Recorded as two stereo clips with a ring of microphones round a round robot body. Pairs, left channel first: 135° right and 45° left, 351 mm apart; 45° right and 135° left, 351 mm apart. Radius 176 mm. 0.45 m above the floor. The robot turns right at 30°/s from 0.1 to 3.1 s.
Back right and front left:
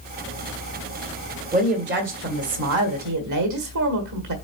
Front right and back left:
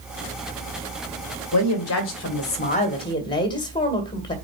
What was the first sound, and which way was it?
A woman speaking, 20° right.